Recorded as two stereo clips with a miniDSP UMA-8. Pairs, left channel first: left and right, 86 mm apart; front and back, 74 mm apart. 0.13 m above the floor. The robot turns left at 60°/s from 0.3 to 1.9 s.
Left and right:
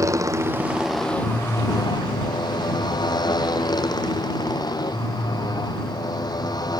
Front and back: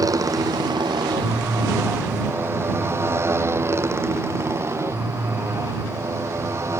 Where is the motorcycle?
140° right; by 6.8 s 130° left.